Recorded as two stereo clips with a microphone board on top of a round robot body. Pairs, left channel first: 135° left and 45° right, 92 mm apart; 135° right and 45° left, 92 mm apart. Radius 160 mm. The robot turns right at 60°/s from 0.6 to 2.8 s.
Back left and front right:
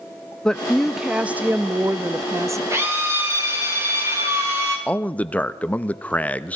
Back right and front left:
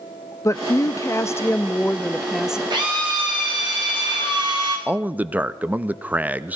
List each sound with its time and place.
0.5 s a woman speaking: 150° right, 0.6 m; by 2.6 s 30° right, 0.6 m
2.7 s a drill: 10° left, 3.5 m; by 4.8 s 15° left, 3.5 m
4.9 s a man speaking: 85° left, 0.6 m